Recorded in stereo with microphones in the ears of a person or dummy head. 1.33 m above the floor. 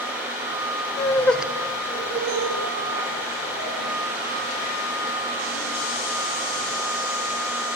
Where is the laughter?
25° left (ahead or behind), 0.6 m; by 6.7 s 85° right, 2.5 m.